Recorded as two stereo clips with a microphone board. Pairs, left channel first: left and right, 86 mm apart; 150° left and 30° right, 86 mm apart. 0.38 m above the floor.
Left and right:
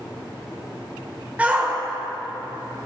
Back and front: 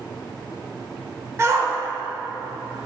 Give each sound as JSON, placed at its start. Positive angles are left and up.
{"t": 1.4, "sound": "a shout", "azimuth_deg": -30, "distance_m": 1.3}